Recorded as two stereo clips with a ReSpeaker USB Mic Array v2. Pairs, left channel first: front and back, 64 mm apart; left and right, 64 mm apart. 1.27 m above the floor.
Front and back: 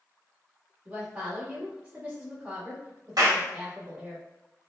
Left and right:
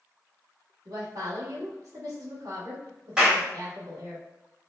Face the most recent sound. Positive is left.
turn(degrees=-165)